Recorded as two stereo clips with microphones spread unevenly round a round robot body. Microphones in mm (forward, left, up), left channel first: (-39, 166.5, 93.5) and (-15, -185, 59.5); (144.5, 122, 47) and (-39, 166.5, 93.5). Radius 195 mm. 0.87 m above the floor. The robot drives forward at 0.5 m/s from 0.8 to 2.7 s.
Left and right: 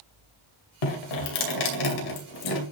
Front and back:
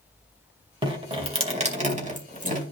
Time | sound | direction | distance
0.8 | dripping | 105° left | 2.5 m